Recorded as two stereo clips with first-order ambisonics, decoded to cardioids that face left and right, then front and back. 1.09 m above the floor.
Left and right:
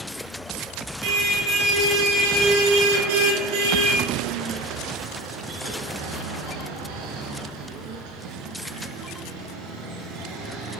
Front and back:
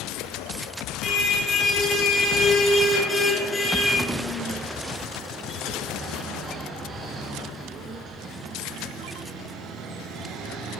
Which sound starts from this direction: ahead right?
A car horn, at 1.0 s.